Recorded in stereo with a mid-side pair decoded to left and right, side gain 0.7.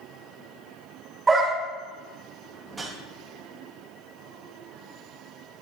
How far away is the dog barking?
About 2 m.